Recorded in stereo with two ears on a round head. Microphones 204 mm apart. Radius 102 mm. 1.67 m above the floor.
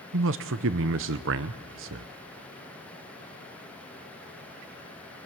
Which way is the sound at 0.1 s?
60° right (ahead or behind).